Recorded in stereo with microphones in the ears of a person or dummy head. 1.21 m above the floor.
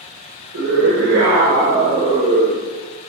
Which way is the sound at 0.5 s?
70° right (ahead or behind).